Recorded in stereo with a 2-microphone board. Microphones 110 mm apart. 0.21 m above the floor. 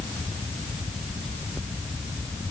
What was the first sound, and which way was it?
Only background noise.